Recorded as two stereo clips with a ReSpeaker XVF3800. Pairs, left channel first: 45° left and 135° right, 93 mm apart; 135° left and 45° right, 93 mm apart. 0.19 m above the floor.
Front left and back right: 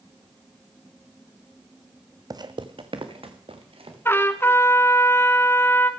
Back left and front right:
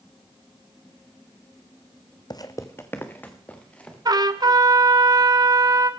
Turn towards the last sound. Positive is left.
turn(degrees=-15)